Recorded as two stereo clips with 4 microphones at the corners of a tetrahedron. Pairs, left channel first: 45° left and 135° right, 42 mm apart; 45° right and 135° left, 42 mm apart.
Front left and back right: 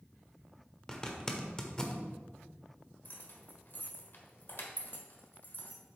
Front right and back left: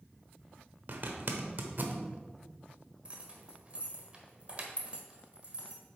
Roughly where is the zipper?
Behind left.